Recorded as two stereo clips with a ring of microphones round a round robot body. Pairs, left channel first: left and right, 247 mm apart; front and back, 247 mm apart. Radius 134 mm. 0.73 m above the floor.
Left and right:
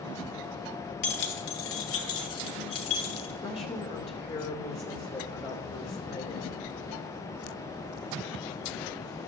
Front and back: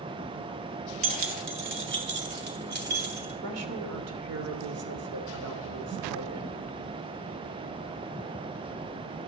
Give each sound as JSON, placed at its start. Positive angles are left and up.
{"t": 1.0, "sound": "keys jangling", "azimuth_deg": 145, "distance_m": 1.6}
{"t": 3.4, "sound": "a woman speaking", "azimuth_deg": 160, "distance_m": 2.5}